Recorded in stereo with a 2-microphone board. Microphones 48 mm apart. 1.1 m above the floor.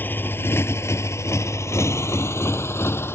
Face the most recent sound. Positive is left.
turn(degrees=60)  # may be behind; listen again after turning